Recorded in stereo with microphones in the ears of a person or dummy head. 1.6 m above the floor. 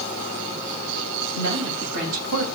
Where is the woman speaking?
80° right, 7 m.